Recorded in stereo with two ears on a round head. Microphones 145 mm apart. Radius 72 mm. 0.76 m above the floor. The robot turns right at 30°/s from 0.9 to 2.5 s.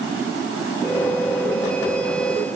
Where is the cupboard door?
I don't hear a cupboard door.